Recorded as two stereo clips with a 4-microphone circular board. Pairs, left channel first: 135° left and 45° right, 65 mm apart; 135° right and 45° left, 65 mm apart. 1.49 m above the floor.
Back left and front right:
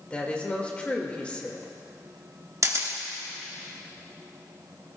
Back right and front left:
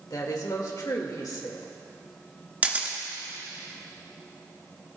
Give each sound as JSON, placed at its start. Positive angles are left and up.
{"t": 0.1, "sound": "a woman speaking", "azimuth_deg": -155, "distance_m": 1.9}
{"t": 2.6, "sound": "a camera shutter", "azimuth_deg": -15, "distance_m": 1.5}